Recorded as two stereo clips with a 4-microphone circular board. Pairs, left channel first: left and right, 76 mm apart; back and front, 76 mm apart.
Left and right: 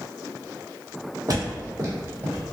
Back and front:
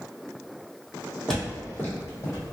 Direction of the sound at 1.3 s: 95° right.